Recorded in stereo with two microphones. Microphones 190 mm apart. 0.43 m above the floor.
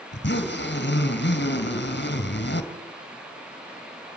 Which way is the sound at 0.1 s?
70° left (ahead or behind).